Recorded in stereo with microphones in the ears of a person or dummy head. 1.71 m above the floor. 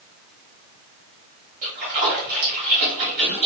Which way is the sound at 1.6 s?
45° right (ahead or behind).